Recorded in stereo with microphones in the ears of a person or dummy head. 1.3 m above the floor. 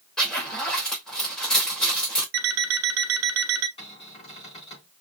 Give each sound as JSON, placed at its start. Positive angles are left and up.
{"t": 0.2, "sound": "a zipper", "side_deg": 5, "distance_m": 3.0}
{"t": 2.3, "sound": "an alarm clock", "side_deg": -70, "distance_m": 1.2}
{"t": 3.8, "sound": "a cupboard door", "side_deg": 30, "distance_m": 4.0}